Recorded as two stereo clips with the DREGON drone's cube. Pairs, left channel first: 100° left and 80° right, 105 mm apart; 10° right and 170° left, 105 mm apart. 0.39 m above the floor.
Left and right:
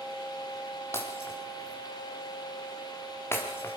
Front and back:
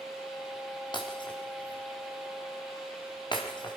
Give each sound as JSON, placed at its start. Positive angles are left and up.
{"t": 0.9, "sound": "breaking glass", "azimuth_deg": 35, "distance_m": 5.0}